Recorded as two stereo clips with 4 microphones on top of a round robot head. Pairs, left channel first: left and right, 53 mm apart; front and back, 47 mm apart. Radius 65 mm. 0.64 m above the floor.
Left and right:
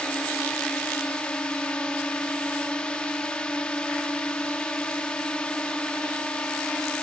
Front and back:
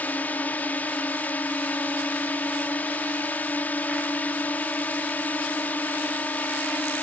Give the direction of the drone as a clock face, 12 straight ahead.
11 o'clock.